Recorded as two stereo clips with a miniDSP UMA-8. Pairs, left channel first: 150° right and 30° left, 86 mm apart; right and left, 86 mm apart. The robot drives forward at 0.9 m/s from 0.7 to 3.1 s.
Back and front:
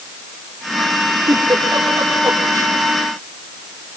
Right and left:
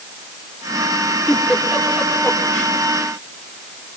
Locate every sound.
1.3 s a giggle: 15° right, 5 m; by 2.8 s 25° right, 4 m